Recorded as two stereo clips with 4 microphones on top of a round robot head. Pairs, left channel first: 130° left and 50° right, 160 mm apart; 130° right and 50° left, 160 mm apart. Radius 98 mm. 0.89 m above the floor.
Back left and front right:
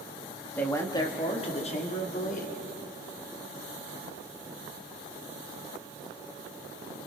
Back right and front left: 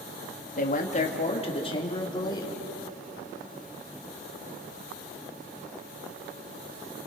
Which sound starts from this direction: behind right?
A man speaking, at 0.6 s.